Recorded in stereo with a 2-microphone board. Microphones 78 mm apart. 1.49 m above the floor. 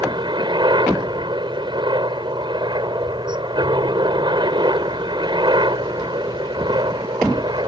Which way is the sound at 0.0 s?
80° right.